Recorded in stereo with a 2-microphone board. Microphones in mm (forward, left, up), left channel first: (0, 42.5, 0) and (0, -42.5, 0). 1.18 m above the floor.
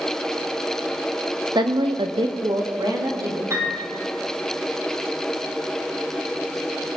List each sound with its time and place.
1.6 s a woman speaking: 60° right (ahead or behind), 1.1 m; by 3.4 s 40° right (ahead or behind), 2.5 m
3.5 s a piano: 35° right (ahead or behind), 4.5 m